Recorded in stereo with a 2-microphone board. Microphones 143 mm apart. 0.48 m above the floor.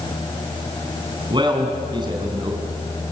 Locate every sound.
1.3 s a man speaking: 35° right (ahead or behind), 3.5 m